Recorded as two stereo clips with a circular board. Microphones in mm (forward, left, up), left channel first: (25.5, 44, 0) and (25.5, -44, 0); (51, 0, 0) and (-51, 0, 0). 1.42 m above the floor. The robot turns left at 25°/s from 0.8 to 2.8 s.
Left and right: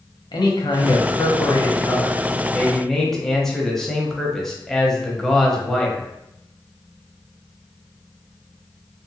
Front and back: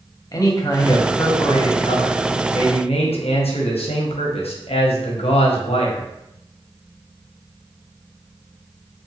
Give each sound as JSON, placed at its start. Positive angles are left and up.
{"t": 0.3, "sound": "a man speaking", "azimuth_deg": 55, "distance_m": 0.6}